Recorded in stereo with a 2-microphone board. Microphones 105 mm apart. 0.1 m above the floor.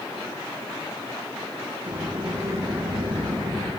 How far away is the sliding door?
About 6.5 m.